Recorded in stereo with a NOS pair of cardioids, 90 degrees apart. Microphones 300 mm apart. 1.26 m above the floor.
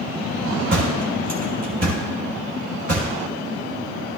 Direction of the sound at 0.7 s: 45° right.